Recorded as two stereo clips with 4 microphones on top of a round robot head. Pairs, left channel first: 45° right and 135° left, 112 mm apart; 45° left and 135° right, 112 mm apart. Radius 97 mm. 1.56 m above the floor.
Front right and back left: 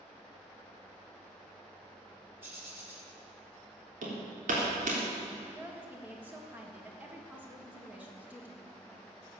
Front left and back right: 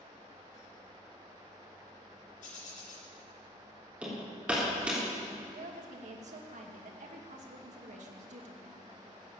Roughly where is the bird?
Ahead left.